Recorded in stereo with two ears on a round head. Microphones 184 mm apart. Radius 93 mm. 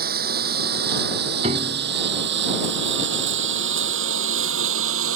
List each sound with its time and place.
0.0 s a lawn mower: 50° right (ahead or behind); by 5.2 s 80° right
1.4 s a piano: 30° right (ahead or behind)